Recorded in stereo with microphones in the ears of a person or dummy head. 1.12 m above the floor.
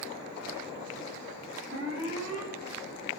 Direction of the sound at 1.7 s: 70° right (ahead or behind).